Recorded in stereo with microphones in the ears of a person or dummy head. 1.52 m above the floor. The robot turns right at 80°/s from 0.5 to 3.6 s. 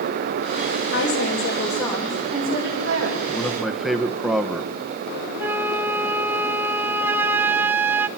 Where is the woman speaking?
105° left, 6 m; by 3.2 s 70° right, 6 m.